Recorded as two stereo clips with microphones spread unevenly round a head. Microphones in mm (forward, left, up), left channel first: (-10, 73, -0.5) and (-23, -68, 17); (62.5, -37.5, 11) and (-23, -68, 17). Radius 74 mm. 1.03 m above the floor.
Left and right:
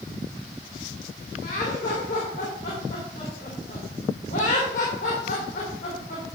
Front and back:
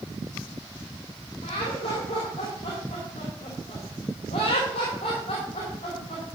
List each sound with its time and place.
1.4 s laughter: 50° left, 2.5 m